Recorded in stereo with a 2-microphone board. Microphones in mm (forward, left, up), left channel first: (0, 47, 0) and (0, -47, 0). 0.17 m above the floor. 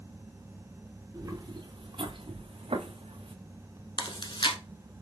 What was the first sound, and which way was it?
Footsteps, 40° right (ahead or behind).